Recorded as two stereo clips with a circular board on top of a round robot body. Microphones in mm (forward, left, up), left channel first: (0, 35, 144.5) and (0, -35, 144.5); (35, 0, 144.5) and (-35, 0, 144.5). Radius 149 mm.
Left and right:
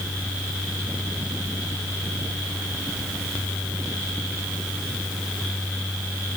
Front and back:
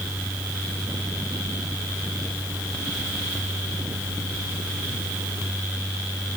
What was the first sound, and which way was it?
Only background noise.